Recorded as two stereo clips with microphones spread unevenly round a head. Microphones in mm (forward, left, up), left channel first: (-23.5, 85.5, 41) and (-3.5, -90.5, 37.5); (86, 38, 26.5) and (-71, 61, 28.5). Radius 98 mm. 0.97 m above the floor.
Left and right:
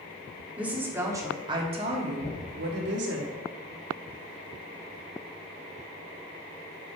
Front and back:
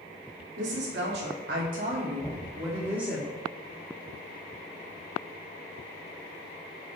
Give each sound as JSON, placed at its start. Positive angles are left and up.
{"t": 0.6, "sound": "a woman speaking", "azimuth_deg": -165, "distance_m": 2.5}
{"t": 2.2, "sound": "knocking", "azimuth_deg": 60, "distance_m": 4.0}